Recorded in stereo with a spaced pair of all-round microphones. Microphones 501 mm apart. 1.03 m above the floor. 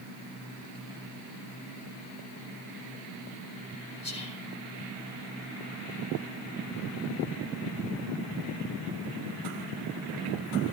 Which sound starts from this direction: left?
Whispering, at 4.0 s.